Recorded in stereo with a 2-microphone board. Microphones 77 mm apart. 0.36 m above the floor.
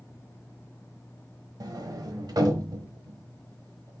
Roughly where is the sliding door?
Right.